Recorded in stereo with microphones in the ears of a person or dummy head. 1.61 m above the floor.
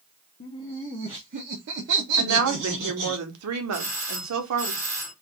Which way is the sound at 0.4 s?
30° left (ahead or behind).